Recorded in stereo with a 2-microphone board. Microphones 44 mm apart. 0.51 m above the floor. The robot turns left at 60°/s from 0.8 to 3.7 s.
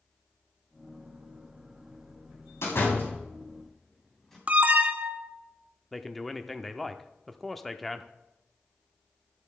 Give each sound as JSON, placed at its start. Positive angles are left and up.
{"t": 2.6, "sound": "a door slam", "side_deg": 70, "distance_m": 3.0}
{"t": 4.5, "sound": "an alarm", "side_deg": -35, "distance_m": 0.8}
{"t": 5.9, "sound": "a man speaking", "side_deg": 5, "distance_m": 0.7}